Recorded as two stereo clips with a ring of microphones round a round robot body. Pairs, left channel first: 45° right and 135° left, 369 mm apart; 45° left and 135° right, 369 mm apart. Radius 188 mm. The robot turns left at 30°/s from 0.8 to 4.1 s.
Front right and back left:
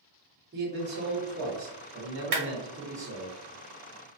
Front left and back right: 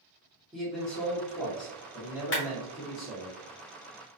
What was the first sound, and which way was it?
A man speaking, 130° left.